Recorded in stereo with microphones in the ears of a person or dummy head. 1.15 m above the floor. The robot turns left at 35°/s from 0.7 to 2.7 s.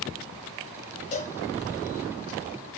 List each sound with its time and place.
1.1 s a cowbell: 40° left (ahead or behind), 0.9 m